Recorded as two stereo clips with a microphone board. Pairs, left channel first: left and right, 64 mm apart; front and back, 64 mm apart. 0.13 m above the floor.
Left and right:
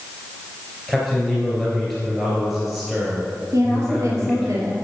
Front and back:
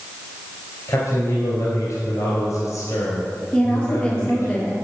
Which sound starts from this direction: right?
A woman speaking, at 3.5 s.